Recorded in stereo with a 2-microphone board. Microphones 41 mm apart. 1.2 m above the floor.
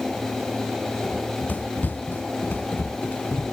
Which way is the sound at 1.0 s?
45° left (ahead or behind).